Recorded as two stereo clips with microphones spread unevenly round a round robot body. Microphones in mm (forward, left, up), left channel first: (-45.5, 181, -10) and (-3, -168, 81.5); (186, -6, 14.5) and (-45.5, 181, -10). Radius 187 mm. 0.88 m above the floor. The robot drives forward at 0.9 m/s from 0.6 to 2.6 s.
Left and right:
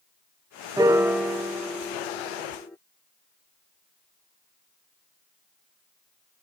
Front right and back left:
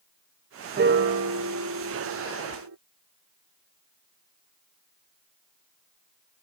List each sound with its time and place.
0.8 s a piano: 175° right; by 2.8 s straight behind